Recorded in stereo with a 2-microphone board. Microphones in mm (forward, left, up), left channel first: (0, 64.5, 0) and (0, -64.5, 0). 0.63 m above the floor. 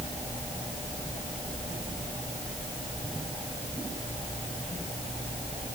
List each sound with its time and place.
Only background noise.